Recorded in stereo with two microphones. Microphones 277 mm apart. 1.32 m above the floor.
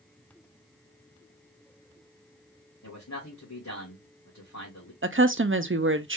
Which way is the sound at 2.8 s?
75° left (ahead or behind).